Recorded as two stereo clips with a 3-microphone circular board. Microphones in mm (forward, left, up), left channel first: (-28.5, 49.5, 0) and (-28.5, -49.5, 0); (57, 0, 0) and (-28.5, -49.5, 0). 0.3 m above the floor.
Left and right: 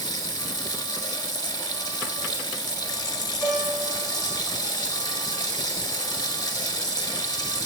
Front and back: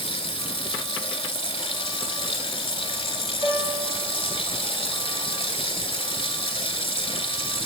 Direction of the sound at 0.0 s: 45° left.